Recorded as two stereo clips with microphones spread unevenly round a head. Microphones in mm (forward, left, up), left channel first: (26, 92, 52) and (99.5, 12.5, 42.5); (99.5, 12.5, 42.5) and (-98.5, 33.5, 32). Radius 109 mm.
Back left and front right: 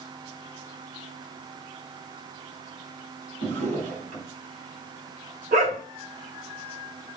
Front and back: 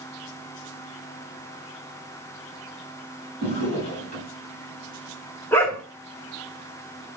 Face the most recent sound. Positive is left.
turn(degrees=-85)